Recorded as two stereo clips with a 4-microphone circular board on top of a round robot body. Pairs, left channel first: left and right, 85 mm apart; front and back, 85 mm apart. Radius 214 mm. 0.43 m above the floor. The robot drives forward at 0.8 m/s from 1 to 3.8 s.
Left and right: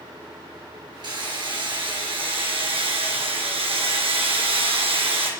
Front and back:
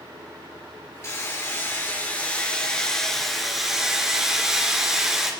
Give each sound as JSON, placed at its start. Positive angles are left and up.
{"t": 1.0, "sound": "hammering", "azimuth_deg": -60, "distance_m": 3.5}